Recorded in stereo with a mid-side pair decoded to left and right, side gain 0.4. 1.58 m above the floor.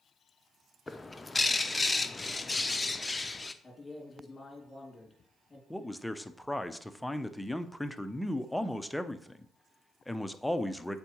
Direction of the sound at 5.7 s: 5° left.